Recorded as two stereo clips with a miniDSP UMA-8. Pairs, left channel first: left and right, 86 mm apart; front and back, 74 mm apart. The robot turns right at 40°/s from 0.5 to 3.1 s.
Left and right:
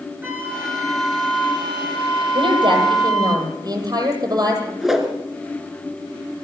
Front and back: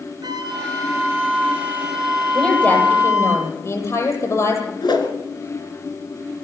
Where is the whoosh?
5° right, 3 m.